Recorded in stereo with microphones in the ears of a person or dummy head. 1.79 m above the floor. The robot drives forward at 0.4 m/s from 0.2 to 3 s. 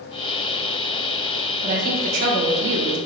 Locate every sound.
1.6 s a woman speaking: 45° right (ahead or behind), 1.1 m; by 3.0 s 70° right (ahead or behind), 0.8 m